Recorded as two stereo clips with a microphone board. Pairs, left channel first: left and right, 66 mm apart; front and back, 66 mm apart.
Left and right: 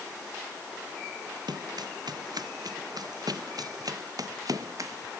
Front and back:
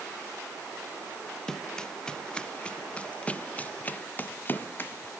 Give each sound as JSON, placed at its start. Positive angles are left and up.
{"t": 1.5, "sound": "running footsteps", "azimuth_deg": -80}